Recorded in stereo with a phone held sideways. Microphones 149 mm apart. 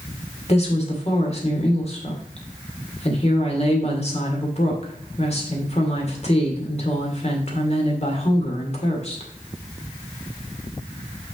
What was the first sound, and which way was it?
A woman speaking, 45° left (ahead or behind).